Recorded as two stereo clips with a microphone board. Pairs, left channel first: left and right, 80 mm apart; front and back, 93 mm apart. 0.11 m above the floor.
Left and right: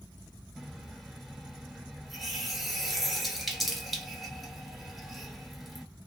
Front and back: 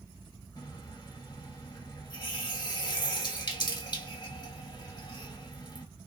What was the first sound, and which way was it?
A running tap, straight ahead.